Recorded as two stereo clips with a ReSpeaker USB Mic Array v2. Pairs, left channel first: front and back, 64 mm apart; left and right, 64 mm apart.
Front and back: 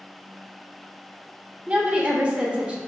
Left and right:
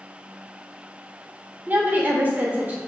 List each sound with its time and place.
1.7 s a woman speaking: 130° right, 0.8 m